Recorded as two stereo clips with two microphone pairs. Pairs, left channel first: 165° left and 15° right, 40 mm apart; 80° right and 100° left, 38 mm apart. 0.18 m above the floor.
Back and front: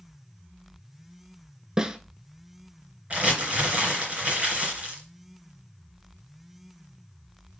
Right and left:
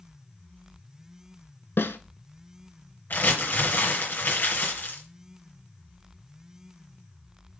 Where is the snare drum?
90° right, 0.6 m.